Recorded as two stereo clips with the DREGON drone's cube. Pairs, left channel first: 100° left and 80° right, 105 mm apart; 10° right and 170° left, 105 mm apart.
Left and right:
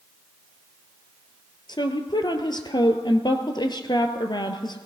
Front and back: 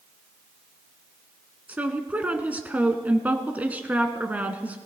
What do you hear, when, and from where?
1.7 s a woman speaking: 100° left, 1.4 m